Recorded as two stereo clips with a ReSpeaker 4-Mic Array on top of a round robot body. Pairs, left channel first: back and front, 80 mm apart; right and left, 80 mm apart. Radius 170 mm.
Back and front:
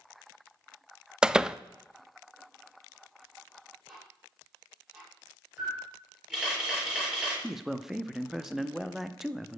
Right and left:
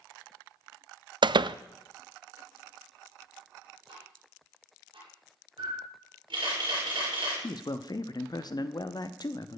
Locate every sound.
1.2 s a door slam: 80° left, 0.5 m
3.9 s ticking: 80° left, 6.5 m
5.6 s a camera shutter: 80° left, 7 m
7.4 s a man speaking: 85° right, 1.1 m